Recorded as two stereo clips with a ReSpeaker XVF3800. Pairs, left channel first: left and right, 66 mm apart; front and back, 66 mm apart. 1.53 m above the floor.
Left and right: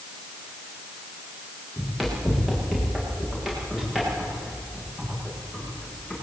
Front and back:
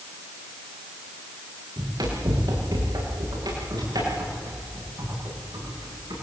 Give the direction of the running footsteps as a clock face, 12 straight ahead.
6 o'clock.